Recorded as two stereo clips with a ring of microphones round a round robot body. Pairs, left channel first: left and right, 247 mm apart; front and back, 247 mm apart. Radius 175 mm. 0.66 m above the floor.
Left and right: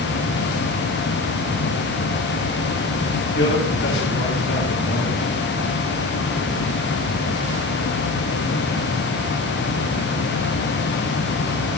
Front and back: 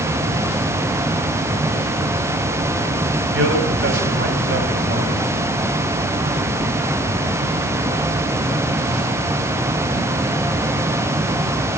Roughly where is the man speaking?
Behind left.